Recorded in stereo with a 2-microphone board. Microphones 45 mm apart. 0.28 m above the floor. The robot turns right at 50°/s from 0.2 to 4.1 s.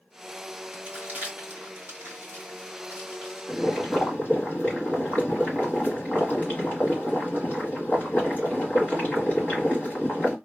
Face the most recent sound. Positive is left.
turn(degrees=55)